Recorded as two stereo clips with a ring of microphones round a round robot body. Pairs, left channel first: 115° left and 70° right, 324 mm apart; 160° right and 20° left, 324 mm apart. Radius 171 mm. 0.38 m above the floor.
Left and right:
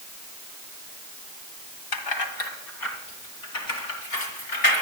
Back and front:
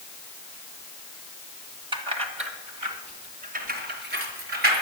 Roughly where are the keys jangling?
Left.